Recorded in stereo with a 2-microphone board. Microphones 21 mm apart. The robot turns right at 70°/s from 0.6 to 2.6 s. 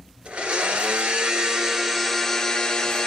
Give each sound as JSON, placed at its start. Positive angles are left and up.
{"t": 0.2, "sound": "a blender", "azimuth_deg": -110, "distance_m": 1.3}